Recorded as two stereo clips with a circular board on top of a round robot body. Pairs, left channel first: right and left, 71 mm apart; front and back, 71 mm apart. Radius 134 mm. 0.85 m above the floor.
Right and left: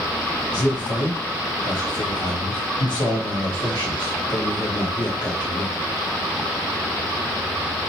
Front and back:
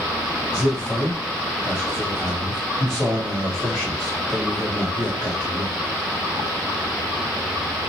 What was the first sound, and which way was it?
A man speaking, 95° right.